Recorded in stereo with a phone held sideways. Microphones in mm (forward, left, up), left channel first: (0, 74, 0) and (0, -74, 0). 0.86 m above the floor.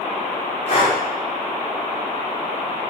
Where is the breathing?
40° left (ahead or behind), 1.7 m.